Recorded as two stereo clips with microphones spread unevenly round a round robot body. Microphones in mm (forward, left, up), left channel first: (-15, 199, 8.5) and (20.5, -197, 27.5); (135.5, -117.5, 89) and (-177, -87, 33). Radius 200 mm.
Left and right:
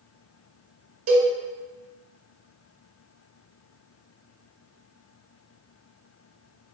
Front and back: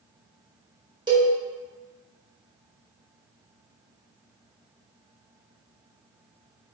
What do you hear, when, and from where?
1.1 s a cowbell: 115° right, 1.8 m